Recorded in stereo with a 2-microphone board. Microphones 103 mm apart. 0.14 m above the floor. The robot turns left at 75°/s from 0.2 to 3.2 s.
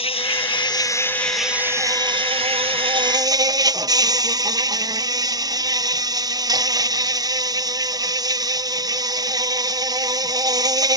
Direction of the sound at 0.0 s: 90° left.